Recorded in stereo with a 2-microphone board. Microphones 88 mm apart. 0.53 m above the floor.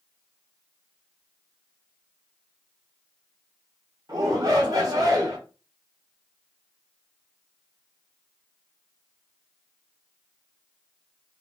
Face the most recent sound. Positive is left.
turn(degrees=-45)  # may be behind; listen again after turning